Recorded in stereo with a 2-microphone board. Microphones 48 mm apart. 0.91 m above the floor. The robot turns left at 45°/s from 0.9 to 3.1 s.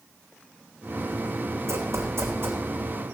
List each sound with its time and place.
1.7 s running footsteps: 75° right (ahead or behind), 3 m; by 2.6 s 50° right (ahead or behind), 3 m